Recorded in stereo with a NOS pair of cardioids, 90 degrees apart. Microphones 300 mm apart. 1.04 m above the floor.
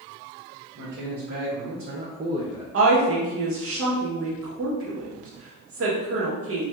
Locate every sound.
0.8 s a man speaking: 65° right, 1.3 m; by 2.6 s 10° right, 0.6 m
2.7 s a woman speaking: 50° right, 1.2 m